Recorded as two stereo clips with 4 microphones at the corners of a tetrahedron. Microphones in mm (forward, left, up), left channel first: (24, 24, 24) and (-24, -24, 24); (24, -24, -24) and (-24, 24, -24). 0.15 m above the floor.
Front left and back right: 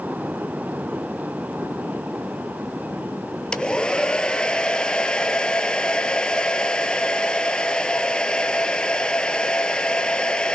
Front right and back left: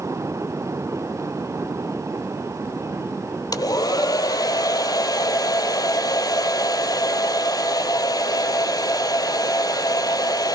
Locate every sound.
3.5 s a hair dryer: 30° right, 0.8 m